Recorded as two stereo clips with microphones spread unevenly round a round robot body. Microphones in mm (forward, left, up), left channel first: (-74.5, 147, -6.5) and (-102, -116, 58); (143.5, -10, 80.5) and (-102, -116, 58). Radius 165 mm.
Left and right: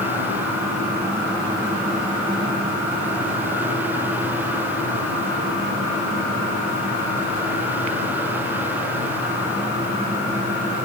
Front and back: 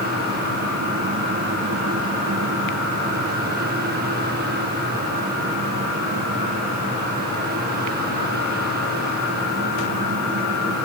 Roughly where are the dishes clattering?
No dishes clattering in this recording.